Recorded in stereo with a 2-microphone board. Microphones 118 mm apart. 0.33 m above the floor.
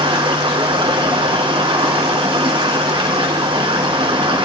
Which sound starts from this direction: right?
Running water, at 0.0 s.